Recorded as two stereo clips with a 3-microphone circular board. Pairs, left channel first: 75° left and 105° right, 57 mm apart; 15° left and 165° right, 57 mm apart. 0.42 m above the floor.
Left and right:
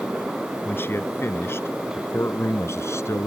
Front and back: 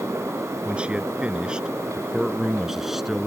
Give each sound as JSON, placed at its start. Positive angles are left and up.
{"t": 0.7, "sound": "a man speaking", "azimuth_deg": 125}